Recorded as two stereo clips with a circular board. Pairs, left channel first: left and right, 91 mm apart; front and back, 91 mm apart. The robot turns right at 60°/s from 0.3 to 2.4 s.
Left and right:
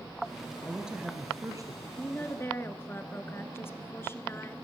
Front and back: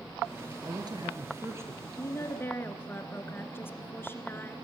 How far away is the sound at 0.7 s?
About 2.5 m.